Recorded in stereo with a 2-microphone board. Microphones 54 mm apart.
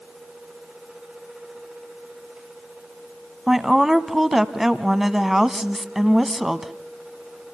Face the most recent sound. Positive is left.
turn(degrees=-5)  # may be behind; listen again after turning